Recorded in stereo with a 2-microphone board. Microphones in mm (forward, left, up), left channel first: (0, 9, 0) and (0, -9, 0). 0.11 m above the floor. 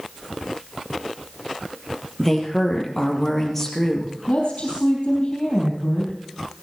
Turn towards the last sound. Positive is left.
turn(degrees=65)  # may be behind; listen again after turning